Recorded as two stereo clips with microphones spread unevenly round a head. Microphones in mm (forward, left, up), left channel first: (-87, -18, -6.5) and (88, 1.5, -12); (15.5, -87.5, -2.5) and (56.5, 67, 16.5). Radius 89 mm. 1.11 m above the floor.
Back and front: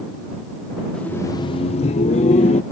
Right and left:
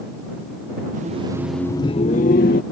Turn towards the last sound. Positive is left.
turn(degrees=-115)